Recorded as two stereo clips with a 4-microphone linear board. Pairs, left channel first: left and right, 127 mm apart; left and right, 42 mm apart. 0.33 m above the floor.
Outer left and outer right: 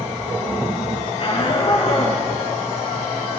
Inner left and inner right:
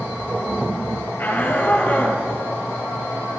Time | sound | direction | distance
1.2 | a shout | 45° left (ahead or behind) | 7 m